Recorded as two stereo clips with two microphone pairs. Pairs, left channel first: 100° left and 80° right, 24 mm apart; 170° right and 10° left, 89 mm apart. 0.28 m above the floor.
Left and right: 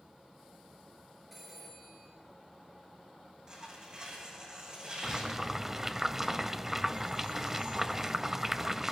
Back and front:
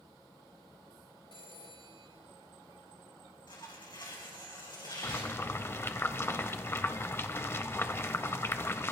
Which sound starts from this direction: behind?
A phone ringing, at 1.3 s.